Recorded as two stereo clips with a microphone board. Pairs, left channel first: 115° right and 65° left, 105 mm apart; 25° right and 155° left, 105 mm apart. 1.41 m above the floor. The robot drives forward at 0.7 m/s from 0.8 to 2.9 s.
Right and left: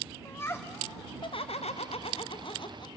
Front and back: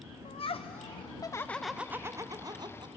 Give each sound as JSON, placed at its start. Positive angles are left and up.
{"t": 0.2, "sound": "laughter", "azimuth_deg": -45, "distance_m": 0.6}